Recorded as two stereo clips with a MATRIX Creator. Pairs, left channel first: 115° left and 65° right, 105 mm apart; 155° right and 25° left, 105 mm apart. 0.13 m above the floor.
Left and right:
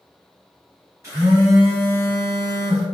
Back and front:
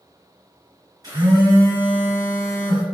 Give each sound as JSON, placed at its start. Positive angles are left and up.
{"t": 1.0, "sound": "a phone buzzing", "azimuth_deg": -15, "distance_m": 1.8}